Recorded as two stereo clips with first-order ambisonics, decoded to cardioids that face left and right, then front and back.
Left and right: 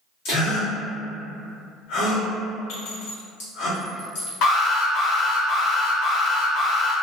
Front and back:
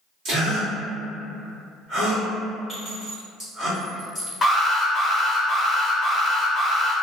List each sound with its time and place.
0.2 s a gasp: 125° left, 1.7 m
2.7 s a clink: 100° left, 1.8 m
4.4 s an alarm: 75° left, 0.8 m